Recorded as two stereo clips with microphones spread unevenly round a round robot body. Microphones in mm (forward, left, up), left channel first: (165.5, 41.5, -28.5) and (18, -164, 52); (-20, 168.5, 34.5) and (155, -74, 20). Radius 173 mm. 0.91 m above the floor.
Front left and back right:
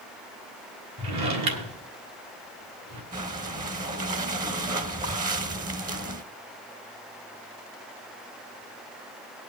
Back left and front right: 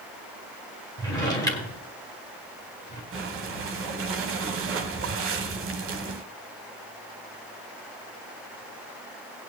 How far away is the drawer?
About 1.6 m.